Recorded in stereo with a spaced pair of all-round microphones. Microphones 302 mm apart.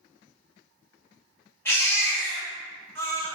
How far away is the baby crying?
About 2.5 m.